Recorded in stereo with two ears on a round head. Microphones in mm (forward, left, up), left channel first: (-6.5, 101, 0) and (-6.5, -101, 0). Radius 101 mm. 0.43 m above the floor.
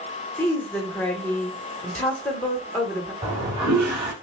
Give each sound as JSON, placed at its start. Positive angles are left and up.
{"t": 0.4, "sound": "a woman speaking", "side_deg": 10, "distance_m": 1.1}
{"t": 3.2, "sound": "a toilet flushing", "side_deg": -30, "distance_m": 3.0}